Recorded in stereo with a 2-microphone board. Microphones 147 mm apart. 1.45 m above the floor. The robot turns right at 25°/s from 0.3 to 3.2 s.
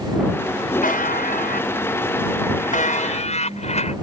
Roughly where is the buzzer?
Left.